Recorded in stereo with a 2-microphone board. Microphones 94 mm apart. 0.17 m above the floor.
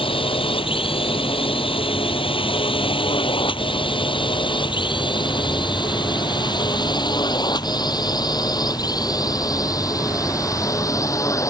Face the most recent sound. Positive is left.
turn(degrees=35)  # may be behind; listen again after turning